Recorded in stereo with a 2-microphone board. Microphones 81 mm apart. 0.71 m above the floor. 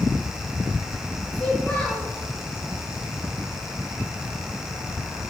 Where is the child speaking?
15° left (ahead or behind), 7 m.